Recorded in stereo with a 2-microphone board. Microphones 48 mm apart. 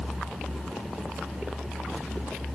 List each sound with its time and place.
Only background noise.